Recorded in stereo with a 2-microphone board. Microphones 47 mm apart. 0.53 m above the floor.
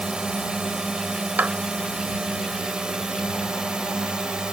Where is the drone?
20° right (ahead or behind).